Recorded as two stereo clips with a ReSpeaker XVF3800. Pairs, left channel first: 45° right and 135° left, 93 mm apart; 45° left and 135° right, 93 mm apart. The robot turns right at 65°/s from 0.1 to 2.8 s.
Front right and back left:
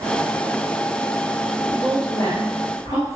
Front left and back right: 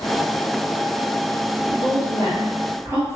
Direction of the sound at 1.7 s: 150° right.